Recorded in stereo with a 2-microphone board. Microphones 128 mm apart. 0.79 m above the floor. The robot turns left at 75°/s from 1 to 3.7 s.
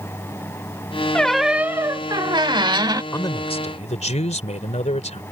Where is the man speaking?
160° left; by 5.2 s 115° left.